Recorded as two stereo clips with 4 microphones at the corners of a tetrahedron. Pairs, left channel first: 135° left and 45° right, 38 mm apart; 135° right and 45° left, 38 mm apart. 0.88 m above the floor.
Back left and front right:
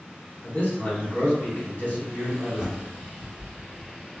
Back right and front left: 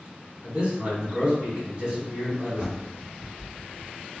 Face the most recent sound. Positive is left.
turn(degrees=10)